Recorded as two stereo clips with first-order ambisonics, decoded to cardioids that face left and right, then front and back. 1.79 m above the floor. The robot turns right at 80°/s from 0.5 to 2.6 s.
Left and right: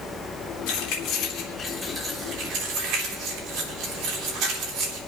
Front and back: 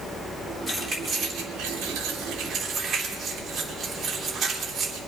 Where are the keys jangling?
95° left, 3 m; by 5.0 s 110° right, 3 m.